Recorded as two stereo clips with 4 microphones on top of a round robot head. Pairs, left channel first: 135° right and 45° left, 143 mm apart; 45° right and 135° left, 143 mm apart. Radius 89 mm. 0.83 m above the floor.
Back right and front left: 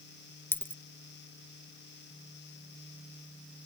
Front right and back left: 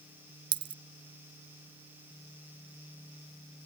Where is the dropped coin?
160° left.